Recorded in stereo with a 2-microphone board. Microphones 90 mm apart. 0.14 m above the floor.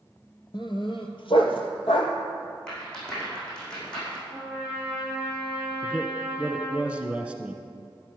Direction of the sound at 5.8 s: 10° right (ahead or behind).